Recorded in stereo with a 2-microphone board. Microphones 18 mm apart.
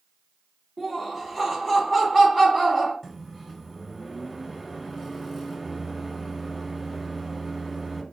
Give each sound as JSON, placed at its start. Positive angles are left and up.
{"t": 0.8, "sound": "laughter", "side_deg": 15, "distance_m": 1.1}
{"t": 3.0, "sound": "a microwave", "side_deg": 5, "distance_m": 0.8}